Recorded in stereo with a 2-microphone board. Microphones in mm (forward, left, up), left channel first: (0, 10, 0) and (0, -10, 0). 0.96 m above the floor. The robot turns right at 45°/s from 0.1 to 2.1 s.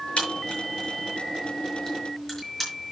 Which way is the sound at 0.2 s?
75° left (ahead or behind).